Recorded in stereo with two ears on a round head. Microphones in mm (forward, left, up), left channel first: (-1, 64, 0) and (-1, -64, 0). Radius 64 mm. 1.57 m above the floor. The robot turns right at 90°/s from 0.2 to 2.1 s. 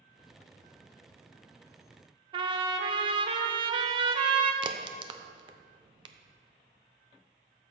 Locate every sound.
2.3 s a trumpet: 35° right (ahead or behind), 0.9 m
4.6 s a crack: 35° right (ahead or behind), 0.7 m